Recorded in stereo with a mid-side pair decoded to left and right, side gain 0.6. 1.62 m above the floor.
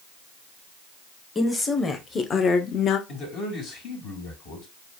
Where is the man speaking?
60° left, 3 m.